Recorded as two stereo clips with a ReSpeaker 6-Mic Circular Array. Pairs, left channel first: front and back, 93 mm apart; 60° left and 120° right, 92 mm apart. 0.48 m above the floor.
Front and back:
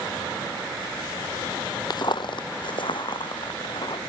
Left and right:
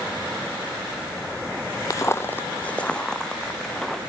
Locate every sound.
1.9 s footsteps: 20° left, 0.7 m; by 4.0 s 25° right, 2.5 m